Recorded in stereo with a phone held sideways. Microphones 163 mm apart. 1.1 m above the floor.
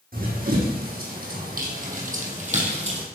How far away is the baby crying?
No baby crying in this recording.